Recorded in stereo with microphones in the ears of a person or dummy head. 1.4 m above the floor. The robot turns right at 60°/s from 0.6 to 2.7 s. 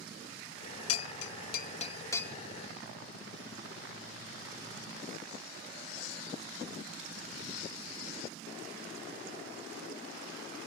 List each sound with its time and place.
0.9 s a bell: 75° left (ahead or behind); by 2.4 s 5° left (ahead or behind)